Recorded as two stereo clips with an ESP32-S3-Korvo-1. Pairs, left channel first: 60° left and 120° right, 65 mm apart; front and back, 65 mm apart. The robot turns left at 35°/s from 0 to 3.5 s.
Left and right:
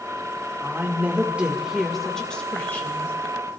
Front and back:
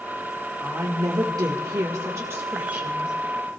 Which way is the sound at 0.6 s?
165° right.